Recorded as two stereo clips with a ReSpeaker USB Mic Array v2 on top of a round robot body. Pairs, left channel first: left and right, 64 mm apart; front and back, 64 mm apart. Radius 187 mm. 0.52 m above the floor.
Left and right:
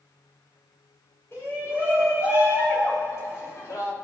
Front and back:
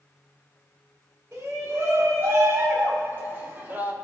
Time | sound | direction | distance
1.3 | a shout | 135° left | 5.5 m